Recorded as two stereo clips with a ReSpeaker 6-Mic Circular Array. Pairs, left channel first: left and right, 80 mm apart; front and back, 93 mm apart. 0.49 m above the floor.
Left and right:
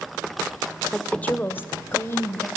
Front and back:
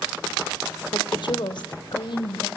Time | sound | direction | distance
0.9 | a woman speaking | 10° left | 1.4 m